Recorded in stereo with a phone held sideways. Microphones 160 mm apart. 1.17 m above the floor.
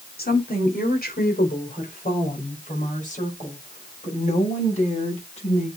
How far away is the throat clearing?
No throat clearing in this recording.